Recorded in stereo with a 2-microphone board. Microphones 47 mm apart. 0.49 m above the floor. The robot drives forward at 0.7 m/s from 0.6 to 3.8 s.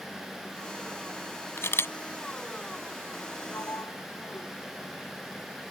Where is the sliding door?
85° left.